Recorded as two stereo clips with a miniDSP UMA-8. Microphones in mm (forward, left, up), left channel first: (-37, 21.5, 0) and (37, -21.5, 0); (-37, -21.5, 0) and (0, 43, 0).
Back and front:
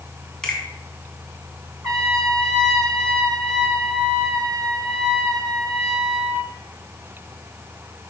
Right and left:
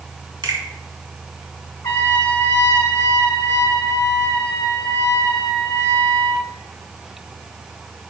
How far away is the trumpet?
About 1.5 m.